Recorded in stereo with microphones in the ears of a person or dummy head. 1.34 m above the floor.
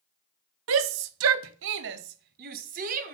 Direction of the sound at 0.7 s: 70° right (ahead or behind).